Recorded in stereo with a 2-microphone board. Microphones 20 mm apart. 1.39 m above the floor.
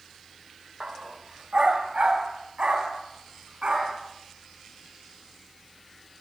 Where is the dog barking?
55° right (ahead or behind), 2 m; by 4.0 s 65° right (ahead or behind), 6.5 m.